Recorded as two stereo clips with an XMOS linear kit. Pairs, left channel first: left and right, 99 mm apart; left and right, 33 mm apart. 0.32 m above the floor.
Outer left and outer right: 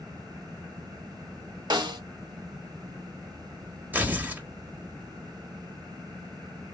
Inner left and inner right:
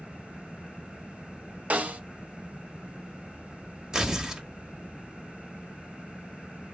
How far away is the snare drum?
About 1.5 m.